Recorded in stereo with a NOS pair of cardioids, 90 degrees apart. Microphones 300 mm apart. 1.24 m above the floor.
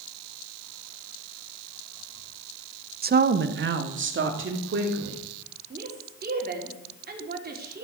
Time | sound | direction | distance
3.0 | a woman speaking | 30° right | 0.8 m
5.7 | a woman speaking | 30° right | 3.5 m